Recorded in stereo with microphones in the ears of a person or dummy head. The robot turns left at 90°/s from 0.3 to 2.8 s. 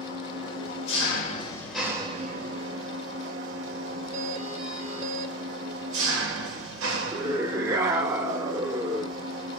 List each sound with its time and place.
0.0 s an engine running: 130° left, 1.1 m; by 9.6 s 95° right, 1.1 m
4.1 s a doorbell: 40° right (ahead or behind), 1.2 m
7.1 s a scream: 20° right (ahead or behind), 0.6 m